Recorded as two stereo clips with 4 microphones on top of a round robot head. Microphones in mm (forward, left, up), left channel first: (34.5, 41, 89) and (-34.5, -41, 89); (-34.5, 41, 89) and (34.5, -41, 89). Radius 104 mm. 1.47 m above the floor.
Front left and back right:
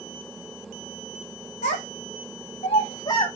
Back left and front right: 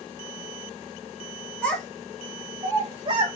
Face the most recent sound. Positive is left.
turn(degrees=-5)